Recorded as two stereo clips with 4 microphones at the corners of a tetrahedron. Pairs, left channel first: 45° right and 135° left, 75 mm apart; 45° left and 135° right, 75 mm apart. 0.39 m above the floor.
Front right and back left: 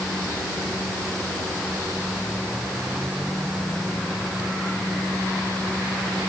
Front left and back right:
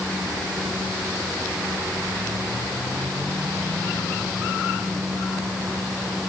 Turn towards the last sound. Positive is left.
No sound to turn to.